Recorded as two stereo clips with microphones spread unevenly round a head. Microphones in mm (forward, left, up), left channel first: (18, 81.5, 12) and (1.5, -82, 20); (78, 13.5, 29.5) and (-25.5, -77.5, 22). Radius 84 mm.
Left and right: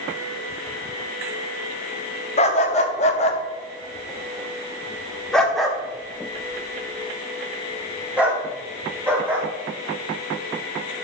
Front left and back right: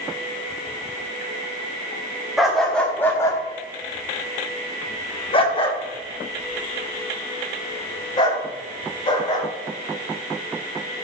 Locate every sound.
2.4 s a dog barking: 130° left, 1.3 m; by 9.5 s 15° right, 4.5 m